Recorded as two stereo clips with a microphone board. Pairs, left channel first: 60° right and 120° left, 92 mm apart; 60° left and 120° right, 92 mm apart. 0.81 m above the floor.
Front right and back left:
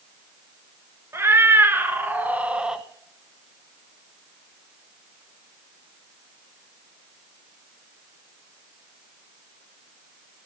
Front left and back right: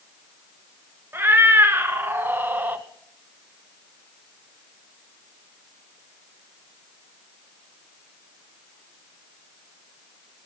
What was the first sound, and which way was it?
A cat meowing, 175° left.